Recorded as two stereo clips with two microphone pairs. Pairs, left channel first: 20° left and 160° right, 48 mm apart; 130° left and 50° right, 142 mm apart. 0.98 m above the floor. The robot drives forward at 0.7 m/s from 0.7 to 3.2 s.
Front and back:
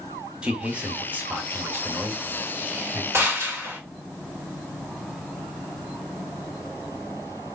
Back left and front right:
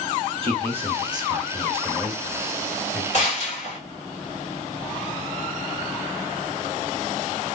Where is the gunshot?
170° left, 1.8 m.